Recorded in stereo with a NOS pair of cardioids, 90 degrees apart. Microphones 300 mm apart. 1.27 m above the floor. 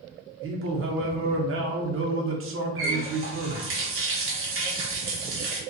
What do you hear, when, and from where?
0.4 s a man speaking: 45° right, 0.8 m
2.8 s a running tap: 45° right, 0.8 m